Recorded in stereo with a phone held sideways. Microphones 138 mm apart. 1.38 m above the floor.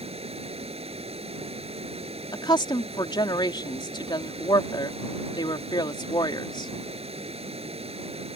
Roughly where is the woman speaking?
Left.